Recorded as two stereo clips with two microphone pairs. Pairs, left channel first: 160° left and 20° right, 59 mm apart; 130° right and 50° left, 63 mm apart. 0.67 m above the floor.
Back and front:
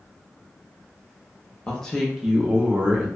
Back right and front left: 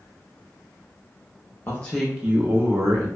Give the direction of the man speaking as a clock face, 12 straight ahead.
5 o'clock.